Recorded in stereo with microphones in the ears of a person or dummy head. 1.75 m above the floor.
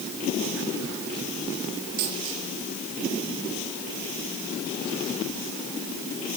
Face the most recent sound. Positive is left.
turn(degrees=-45)  # may be behind; listen again after turning